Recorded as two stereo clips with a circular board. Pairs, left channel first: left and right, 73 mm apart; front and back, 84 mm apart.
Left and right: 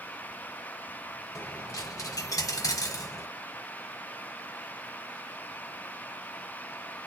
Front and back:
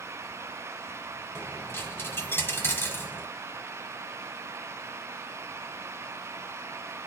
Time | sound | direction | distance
1.4 | a dropped coin | 60° left | 1.3 m